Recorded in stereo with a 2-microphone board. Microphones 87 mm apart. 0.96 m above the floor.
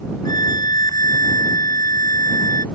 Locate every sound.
0.2 s a violin: 50° left (ahead or behind)